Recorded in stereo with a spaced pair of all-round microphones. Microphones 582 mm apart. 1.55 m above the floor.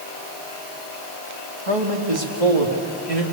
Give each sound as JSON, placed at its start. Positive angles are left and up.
{"t": 1.7, "sound": "a man speaking", "side_deg": -65, "distance_m": 2.5}